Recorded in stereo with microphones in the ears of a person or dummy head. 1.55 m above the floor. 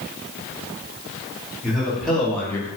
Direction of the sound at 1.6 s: Centre (ahead or behind).